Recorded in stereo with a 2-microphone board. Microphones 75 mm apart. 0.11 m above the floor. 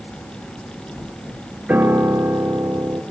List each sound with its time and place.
1.7 s a piano: 20° right (ahead or behind), 0.9 m